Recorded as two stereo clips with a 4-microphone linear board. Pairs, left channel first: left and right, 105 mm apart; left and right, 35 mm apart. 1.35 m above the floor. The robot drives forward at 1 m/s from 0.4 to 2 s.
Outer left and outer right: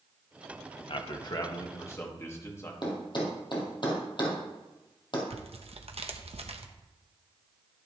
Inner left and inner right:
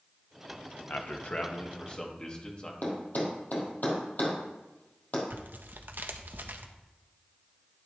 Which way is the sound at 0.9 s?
55° left (ahead or behind).